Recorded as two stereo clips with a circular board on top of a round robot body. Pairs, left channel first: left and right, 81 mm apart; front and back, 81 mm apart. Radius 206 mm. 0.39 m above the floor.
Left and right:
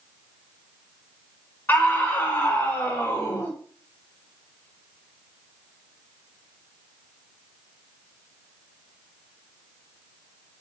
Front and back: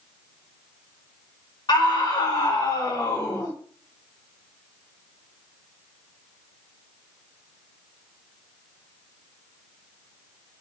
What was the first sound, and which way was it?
A scream, 25° left.